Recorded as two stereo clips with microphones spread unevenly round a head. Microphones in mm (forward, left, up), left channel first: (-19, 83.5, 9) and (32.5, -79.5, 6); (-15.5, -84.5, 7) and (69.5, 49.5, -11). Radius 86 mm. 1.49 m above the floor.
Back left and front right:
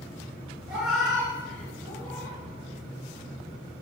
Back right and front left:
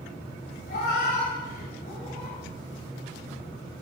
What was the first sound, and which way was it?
A cat meowing, 160° right.